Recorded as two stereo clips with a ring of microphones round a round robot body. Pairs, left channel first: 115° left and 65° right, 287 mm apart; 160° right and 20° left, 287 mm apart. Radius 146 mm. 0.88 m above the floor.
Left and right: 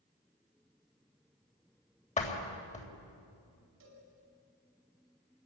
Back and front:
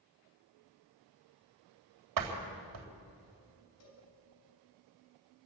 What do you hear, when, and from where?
2.2 s a door slam: 45° left, 3.5 m
3.8 s a cowbell: 120° right, 5.5 m